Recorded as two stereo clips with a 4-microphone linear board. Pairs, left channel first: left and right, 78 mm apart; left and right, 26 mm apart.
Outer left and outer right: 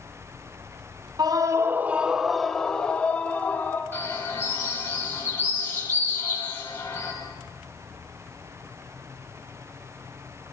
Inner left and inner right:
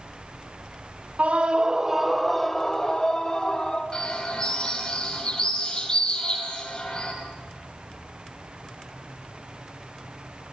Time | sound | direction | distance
1.2 | a scream | 60° right (ahead or behind) | 1.2 m
3.9 | a bird | 30° left (ahead or behind) | 6.5 m